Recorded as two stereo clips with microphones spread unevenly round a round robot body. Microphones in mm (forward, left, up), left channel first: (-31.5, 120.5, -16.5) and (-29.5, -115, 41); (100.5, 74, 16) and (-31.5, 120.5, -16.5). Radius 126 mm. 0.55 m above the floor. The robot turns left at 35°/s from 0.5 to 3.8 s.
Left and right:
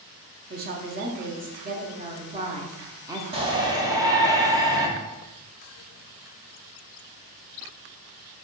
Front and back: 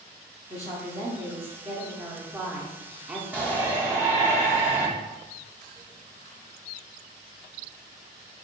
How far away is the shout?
About 0.8 m.